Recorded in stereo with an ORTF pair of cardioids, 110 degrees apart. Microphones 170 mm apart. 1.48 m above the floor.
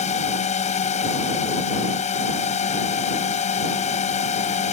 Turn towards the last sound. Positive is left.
turn(degrees=40)